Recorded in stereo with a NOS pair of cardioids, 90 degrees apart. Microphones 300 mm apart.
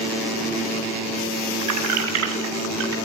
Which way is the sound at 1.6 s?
70° right.